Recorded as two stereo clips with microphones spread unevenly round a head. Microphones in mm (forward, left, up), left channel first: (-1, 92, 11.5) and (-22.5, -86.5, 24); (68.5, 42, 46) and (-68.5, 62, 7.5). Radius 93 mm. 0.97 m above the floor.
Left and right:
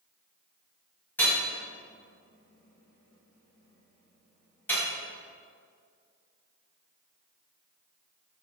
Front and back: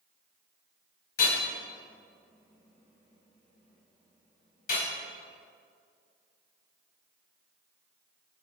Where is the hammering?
5° left, 4.5 m.